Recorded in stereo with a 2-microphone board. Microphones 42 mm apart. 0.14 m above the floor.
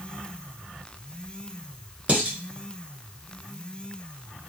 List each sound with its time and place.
2.1 s dishes clattering: 30° right (ahead or behind), 1.2 m